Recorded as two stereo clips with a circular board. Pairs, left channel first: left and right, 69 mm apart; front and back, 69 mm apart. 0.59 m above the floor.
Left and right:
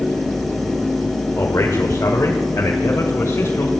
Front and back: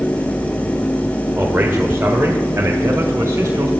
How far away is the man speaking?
About 1.7 m.